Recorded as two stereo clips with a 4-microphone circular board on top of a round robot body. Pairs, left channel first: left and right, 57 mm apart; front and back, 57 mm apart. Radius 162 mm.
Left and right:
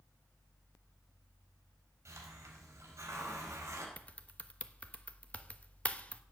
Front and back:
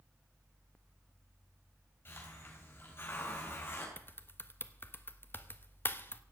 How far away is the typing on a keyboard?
About 1.5 m.